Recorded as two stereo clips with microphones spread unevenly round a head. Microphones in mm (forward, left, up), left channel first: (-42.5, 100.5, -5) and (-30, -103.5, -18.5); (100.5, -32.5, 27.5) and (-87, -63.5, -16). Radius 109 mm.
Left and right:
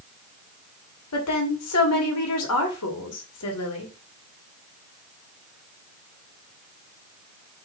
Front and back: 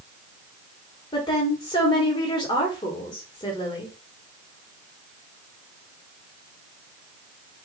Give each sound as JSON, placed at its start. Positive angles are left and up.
{"t": 1.1, "sound": "a woman speaking", "azimuth_deg": 85, "distance_m": 1.4}